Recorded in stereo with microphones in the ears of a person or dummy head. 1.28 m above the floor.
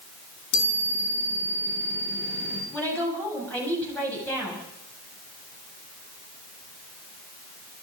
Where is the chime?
80° left, 7 m.